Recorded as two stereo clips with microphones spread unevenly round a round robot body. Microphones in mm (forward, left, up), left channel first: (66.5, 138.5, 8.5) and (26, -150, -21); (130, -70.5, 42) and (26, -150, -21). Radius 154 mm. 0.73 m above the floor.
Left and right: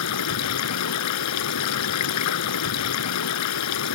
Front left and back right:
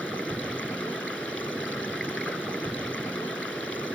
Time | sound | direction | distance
0.0 | running water | 125° left | ?